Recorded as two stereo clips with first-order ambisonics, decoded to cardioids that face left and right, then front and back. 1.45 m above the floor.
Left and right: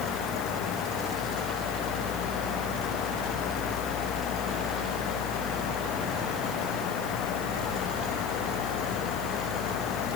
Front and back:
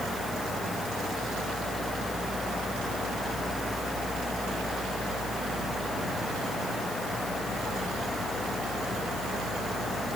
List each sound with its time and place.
Only background noise.